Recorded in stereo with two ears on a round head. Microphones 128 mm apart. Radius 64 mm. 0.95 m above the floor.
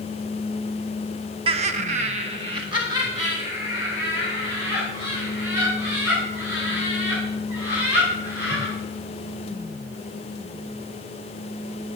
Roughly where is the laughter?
Right.